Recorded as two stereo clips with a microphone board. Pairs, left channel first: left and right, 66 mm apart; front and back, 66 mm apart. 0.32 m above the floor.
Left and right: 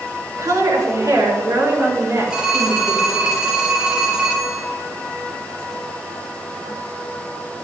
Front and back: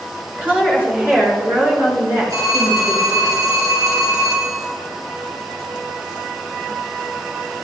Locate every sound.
0.4 s a woman speaking: 115° right, 4.5 m; by 3.3 s 145° right, 5 m
2.3 s a phone ringing: 175° right, 4.5 m